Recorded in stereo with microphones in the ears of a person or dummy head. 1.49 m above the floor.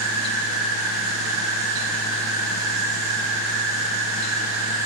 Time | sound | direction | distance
0.0 | an insect | 20° right (ahead or behind) | 1.5 m